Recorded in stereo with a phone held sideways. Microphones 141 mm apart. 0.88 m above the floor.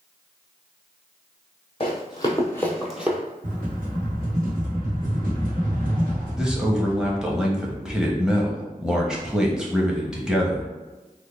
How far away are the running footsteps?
About 1.2 m.